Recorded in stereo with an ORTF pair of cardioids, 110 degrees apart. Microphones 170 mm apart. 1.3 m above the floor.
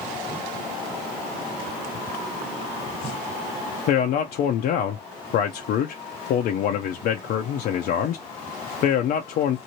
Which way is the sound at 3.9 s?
65° left.